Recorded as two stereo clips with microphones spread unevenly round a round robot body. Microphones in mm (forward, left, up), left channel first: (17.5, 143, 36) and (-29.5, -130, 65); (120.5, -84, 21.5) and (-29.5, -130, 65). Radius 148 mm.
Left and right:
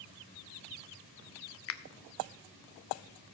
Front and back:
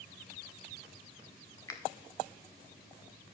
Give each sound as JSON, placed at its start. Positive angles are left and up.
{"t": 1.7, "sound": "a finger snap", "azimuth_deg": 75, "distance_m": 0.6}